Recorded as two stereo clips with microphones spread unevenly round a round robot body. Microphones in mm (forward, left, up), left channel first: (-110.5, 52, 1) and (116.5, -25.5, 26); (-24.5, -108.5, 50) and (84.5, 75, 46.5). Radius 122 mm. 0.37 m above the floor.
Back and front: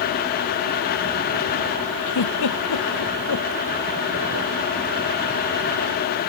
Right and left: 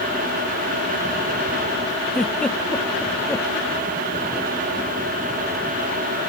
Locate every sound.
2.1 s a giggle: 155° left